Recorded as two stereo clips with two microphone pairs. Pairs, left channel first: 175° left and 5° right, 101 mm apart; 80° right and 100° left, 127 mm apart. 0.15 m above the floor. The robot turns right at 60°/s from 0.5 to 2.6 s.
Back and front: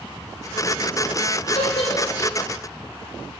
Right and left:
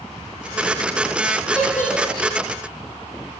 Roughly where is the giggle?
Behind.